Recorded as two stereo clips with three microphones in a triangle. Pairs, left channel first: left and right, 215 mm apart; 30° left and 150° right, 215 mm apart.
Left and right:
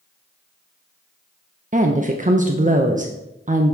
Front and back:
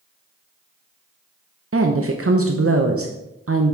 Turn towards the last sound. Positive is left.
turn(degrees=-150)